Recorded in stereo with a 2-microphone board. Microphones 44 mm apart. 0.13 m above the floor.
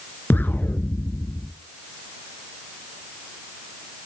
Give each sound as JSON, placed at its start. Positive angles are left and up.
{"t": 0.3, "sound": "an explosion", "side_deg": 50, "distance_m": 0.8}